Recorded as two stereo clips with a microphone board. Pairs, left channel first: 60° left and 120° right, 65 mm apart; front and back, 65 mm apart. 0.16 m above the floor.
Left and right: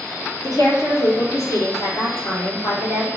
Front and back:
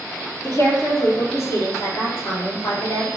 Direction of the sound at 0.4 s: 40° left.